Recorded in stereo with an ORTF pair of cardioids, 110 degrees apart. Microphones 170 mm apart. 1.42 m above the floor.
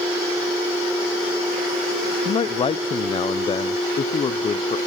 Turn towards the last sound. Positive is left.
turn(degrees=35)